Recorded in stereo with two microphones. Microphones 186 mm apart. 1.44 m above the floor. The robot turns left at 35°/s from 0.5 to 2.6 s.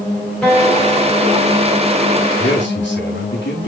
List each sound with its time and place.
0.4 s a guitar: 175° left, 3 m; by 1.7 s 135° left, 3 m
2.4 s a man speaking: 85° left, 3.5 m; by 3.7 s 80° left, 3.5 m